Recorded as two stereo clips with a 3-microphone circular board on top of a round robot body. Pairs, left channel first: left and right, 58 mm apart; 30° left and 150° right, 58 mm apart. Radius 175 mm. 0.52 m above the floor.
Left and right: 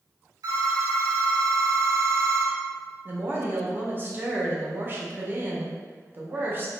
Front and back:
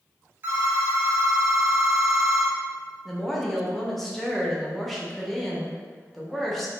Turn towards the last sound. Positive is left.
turn(degrees=-55)